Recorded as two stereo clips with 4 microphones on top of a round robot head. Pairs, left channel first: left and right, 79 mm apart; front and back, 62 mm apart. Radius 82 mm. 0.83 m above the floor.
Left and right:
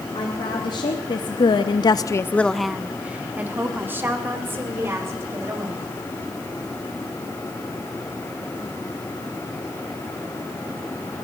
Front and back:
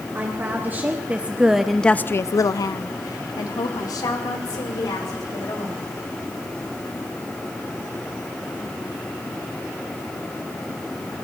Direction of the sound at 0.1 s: 125° left.